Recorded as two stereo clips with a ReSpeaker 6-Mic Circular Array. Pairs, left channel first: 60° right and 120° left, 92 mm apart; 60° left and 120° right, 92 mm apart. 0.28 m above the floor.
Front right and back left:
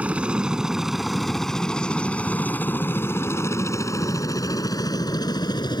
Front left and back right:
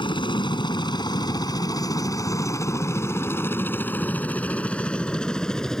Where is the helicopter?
45° left; by 5.8 s 25° right.